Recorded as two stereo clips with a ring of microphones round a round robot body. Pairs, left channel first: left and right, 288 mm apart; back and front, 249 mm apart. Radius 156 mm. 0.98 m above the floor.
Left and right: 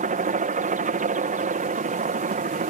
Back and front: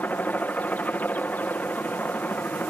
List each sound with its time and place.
0.0 s a helicopter: 105° right